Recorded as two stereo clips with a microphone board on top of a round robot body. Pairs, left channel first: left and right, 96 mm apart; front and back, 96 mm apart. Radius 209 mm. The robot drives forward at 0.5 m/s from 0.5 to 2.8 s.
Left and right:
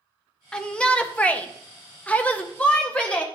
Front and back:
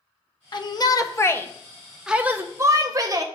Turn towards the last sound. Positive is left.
turn(degrees=160)